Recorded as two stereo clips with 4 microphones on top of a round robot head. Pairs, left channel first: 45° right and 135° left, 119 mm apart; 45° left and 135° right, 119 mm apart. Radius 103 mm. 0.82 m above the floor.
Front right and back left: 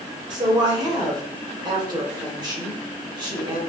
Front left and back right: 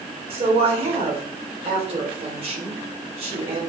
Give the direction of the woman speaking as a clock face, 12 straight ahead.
6 o'clock.